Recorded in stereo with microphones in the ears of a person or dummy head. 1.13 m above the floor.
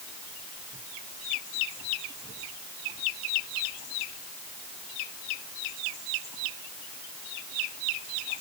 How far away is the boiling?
I don't hear boiling.